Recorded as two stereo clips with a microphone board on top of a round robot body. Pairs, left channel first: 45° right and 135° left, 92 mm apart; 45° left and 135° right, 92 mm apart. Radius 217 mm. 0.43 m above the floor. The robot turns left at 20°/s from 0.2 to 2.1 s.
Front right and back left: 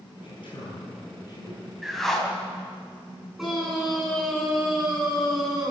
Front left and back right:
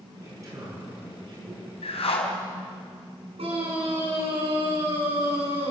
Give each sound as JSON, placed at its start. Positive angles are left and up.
{"t": 0.2, "sound": "a man speaking", "azimuth_deg": -75, "distance_m": 8.5}
{"t": 1.8, "sound": "a whoosh", "azimuth_deg": 45, "distance_m": 3.0}
{"t": 3.4, "sound": "a scream", "azimuth_deg": -140, "distance_m": 7.0}